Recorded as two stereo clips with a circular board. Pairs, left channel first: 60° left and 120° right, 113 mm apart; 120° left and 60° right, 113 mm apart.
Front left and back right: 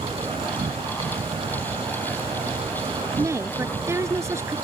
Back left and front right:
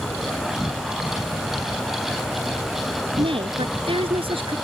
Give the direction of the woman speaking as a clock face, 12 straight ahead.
2 o'clock.